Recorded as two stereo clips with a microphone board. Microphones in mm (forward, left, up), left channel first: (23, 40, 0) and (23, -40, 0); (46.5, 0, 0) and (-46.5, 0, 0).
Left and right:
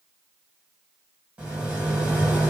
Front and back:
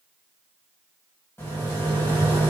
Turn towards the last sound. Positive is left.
turn(degrees=-30)